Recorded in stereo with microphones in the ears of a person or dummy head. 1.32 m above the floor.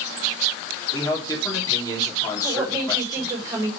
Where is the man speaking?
20° left (ahead or behind), 3 m.